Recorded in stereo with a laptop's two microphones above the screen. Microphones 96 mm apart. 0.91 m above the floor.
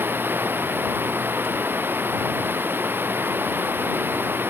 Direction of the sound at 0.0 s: 20° right (ahead or behind).